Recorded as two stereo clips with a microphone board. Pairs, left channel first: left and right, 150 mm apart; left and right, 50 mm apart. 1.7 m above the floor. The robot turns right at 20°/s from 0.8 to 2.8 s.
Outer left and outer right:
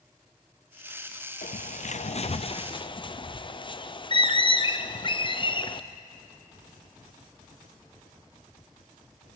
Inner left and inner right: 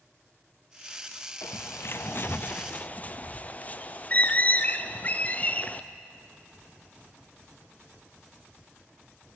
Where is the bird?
60° left (ahead or behind), 0.6 m; by 5.8 s 35° left (ahead or behind), 0.6 m.